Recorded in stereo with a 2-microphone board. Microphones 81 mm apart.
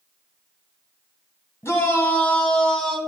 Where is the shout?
35° left (ahead or behind), 1.6 m; by 3.0 s 10° left (ahead or behind), 2 m.